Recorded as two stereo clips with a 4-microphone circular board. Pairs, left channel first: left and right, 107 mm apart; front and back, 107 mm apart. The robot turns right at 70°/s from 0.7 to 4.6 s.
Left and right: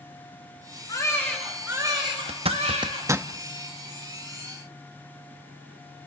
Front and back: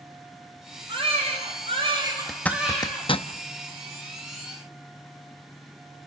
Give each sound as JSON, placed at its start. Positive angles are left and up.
{"t": 0.9, "sound": "a baby crying", "azimuth_deg": 140, "distance_m": 4.5}
{"t": 2.3, "sound": "a zipper", "azimuth_deg": -90, "distance_m": 0.6}